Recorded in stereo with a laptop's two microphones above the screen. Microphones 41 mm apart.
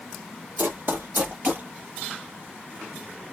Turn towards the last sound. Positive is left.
turn(degrees=-40)  # may be behind; listen again after turning